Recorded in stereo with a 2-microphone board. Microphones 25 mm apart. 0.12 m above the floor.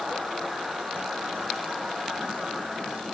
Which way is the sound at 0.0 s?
80° right.